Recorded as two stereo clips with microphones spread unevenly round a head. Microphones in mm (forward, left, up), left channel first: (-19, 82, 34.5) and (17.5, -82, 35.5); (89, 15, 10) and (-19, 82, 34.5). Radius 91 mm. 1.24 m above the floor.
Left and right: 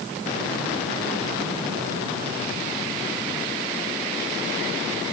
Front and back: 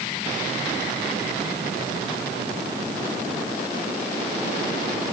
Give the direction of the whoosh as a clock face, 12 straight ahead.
No whoosh in this recording.